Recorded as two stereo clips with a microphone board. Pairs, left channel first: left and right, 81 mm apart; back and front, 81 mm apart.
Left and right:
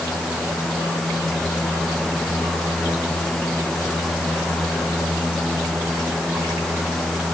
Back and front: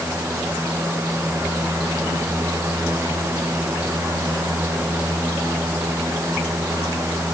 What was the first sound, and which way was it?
Only background noise.